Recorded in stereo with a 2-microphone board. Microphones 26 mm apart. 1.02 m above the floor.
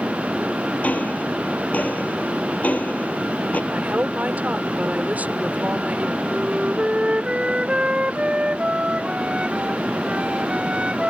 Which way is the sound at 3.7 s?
80° right.